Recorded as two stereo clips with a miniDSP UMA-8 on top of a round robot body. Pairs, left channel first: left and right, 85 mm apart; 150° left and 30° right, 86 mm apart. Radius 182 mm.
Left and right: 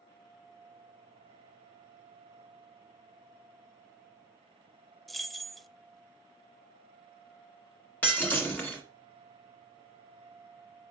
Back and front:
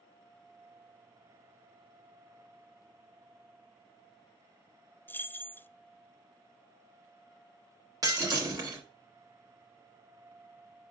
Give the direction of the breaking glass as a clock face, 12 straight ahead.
11 o'clock.